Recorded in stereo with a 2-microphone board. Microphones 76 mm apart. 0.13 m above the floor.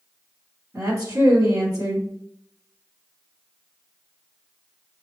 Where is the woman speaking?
40° right (ahead or behind), 1.5 m.